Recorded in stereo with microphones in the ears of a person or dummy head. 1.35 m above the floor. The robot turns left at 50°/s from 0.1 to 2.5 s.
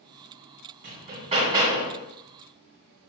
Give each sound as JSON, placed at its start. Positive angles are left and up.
{"t": 0.8, "sound": "hammering", "azimuth_deg": -125, "distance_m": 2.5}